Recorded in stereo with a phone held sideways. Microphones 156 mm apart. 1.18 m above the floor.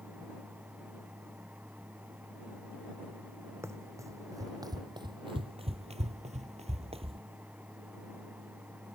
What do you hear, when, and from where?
0.0 s a fan: 10° right (ahead or behind)
3.6 s running footsteps: 15° right (ahead or behind); by 7.2 s 35° right (ahead or behind)